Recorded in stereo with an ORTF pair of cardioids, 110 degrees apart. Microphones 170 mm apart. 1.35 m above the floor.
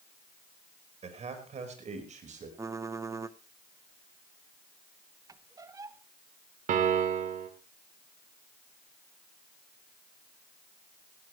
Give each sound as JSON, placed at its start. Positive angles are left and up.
{"t": 1.0, "sound": "a man speaking", "azimuth_deg": -40, "distance_m": 5.5}
{"t": 2.6, "sound": "typing on a keyboard", "azimuth_deg": -20, "distance_m": 1.0}
{"t": 5.3, "sound": "a squeak", "azimuth_deg": -20, "distance_m": 1.0}
{"t": 6.7, "sound": "a piano", "azimuth_deg": -50, "distance_m": 2.5}